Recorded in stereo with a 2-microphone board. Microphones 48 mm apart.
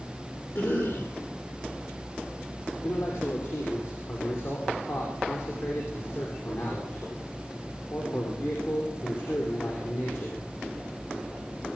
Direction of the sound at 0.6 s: 70° left (ahead or behind).